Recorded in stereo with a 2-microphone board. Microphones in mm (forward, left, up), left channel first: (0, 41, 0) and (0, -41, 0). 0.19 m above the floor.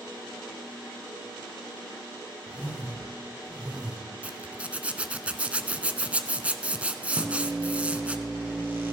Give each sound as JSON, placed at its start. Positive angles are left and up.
{"t": 2.5, "sound": "a whoosh", "side_deg": -15, "distance_m": 3.0}
{"t": 4.2, "sound": "a zipper", "side_deg": -15, "distance_m": 0.9}
{"t": 7.2, "sound": "a microwave", "side_deg": -25, "distance_m": 4.0}